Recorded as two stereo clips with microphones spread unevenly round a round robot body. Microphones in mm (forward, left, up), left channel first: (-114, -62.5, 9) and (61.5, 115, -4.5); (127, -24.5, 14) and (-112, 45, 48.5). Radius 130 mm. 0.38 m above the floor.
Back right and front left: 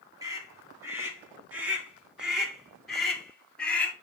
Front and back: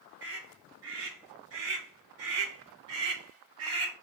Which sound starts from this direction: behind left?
A scream, at 0.2 s.